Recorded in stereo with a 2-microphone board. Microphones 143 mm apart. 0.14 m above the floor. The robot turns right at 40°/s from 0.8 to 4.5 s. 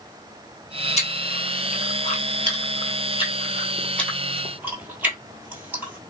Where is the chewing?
50° left (ahead or behind), 1.0 m; by 6.0 s 10° right (ahead or behind), 1.0 m.